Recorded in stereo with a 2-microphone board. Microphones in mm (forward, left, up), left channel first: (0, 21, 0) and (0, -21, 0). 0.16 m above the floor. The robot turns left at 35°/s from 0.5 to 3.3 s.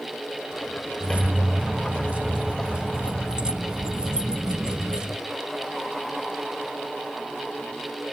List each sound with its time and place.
1.0 s keys jangling: 65° right, 0.8 m; by 5.2 s 145° right, 0.8 m